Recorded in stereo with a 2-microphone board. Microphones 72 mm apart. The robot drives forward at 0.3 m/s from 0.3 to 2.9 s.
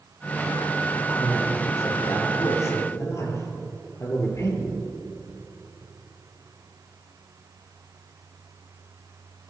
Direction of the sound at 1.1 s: 40° left (ahead or behind).